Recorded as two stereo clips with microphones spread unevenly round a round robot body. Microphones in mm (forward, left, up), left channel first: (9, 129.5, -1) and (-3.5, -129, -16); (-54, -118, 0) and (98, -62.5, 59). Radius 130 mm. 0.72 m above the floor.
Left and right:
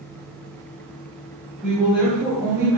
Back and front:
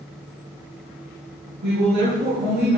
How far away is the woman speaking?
About 6.5 m.